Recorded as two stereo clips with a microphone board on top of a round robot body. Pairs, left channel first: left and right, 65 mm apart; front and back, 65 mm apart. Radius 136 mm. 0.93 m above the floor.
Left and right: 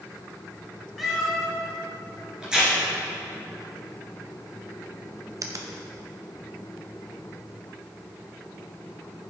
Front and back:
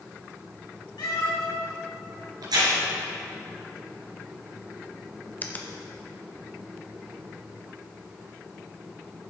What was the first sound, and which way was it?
A cat meowing, 5° right.